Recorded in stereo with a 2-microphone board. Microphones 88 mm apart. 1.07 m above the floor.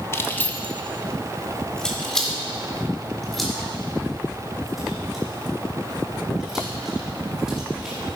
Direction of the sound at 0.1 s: 30° left (ahead or behind).